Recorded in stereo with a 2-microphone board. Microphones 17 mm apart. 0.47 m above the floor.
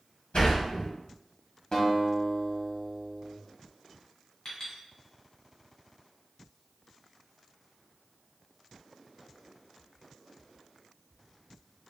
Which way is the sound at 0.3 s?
75° left (ahead or behind).